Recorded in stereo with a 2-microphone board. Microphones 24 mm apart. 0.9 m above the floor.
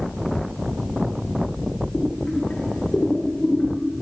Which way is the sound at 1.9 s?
75° left (ahead or behind).